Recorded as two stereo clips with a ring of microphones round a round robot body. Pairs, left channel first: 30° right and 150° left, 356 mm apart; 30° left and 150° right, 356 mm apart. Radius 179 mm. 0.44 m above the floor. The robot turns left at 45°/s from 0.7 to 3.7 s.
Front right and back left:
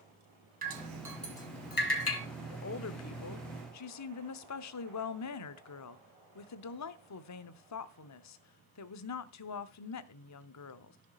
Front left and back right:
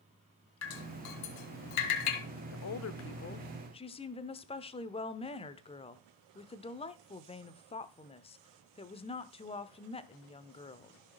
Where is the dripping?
80° left, 3 m; by 2.2 s 15° left, 3 m.